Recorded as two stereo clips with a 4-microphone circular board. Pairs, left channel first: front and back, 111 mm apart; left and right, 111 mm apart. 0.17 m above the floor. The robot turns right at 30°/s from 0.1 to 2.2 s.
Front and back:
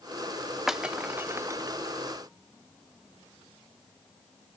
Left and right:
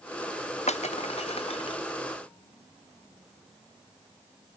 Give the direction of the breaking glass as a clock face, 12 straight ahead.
9 o'clock.